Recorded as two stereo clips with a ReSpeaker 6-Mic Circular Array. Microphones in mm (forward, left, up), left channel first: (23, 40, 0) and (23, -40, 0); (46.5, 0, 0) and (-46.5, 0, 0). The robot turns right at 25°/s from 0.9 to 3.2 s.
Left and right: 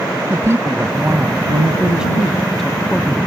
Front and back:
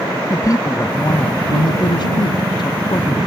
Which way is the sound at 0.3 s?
40° right.